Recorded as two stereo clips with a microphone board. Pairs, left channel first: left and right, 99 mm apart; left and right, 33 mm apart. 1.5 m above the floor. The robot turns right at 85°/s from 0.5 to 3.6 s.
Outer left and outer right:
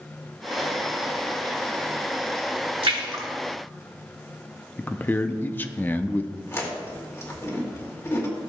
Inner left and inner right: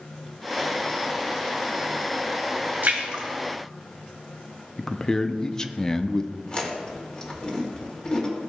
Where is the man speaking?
20° left (ahead or behind), 0.5 m.